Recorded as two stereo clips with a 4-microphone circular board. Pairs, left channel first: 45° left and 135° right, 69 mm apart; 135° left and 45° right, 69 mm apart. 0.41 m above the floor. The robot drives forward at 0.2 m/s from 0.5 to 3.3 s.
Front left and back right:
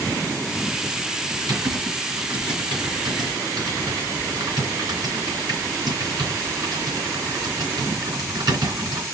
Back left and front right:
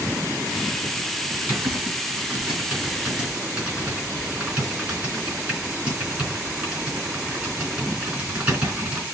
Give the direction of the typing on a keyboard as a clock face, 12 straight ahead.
4 o'clock.